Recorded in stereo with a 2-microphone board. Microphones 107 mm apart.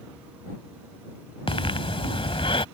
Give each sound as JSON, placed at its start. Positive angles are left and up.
{"t": 1.5, "sound": "breathing", "side_deg": 55}